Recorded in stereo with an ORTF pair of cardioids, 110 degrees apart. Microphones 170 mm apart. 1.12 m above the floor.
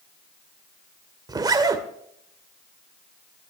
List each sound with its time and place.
1.3 s a zipper: 25° right, 2.0 m